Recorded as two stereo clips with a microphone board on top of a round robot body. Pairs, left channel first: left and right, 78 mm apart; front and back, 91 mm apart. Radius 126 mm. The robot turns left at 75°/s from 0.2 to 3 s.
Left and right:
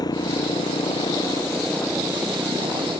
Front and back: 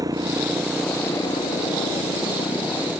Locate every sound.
0.0 s a motorcycle: 130° left; by 3.0 s 80° right